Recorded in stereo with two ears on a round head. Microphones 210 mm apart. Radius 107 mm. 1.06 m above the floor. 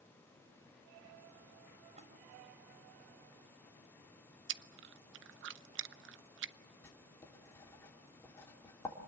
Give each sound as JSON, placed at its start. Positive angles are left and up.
{"t": 2.0, "sound": "a splash", "side_deg": -30, "distance_m": 4.5}
{"t": 4.5, "sound": "chewing", "side_deg": -55, "distance_m": 0.6}
{"t": 6.8, "sound": "writing", "side_deg": 10, "distance_m": 3.0}